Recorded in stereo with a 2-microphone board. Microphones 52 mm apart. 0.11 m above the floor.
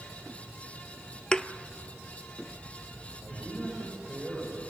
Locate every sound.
1.3 s a thud: 15° left (ahead or behind), 0.7 m
3.2 s a man speaking: 10° right (ahead or behind), 9.5 m